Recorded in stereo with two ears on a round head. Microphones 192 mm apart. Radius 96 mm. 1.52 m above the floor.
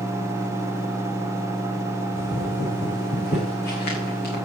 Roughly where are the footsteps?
Left.